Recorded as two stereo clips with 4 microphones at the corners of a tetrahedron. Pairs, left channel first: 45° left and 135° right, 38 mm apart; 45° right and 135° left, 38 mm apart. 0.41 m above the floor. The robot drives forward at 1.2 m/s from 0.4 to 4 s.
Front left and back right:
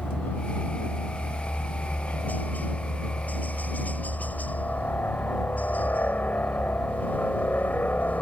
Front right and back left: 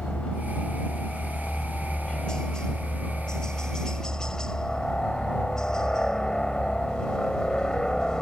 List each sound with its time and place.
0.0 s a helicopter: 20° left